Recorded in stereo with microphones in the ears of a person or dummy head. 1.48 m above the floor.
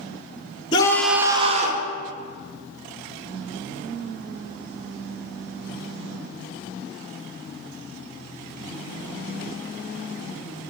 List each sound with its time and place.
0.7 s a scream: 25° left (ahead or behind), 1.0 m; by 1.9 s 50° right (ahead or behind), 1.4 m